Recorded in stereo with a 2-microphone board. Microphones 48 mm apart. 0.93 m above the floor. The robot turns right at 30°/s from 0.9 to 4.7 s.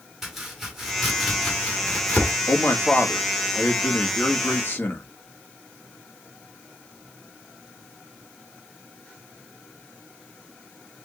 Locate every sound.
0.2 s chopping: 5° right (ahead or behind), 1.9 m; by 2.3 s 40° left (ahead or behind), 1.9 m
2.5 s a man speaking: 65° left, 1.6 m; by 5.0 s 130° left, 1.6 m